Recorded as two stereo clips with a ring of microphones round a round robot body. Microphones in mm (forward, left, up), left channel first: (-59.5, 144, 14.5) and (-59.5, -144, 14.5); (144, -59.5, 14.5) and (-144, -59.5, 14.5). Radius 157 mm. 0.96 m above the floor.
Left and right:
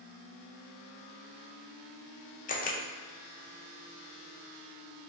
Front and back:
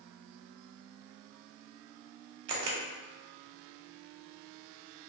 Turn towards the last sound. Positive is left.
turn(degrees=155)